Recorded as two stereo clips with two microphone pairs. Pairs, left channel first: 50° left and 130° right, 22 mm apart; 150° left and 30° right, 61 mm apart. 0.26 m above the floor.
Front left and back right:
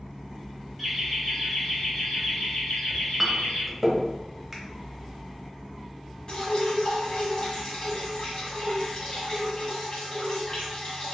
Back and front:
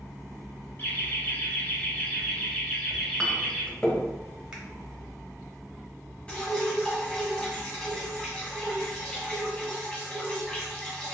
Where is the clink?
175° left, 0.6 m.